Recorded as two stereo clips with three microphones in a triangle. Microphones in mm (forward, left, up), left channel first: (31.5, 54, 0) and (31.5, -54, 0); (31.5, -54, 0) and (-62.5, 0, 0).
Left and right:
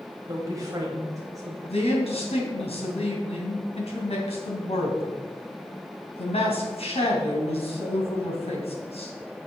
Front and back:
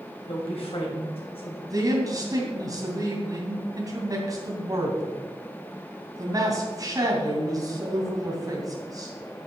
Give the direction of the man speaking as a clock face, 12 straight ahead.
9 o'clock.